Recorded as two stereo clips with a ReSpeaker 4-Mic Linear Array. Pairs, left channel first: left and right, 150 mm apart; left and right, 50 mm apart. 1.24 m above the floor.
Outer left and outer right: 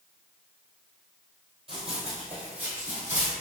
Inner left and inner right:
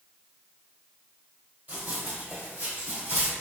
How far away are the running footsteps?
About 1.8 m.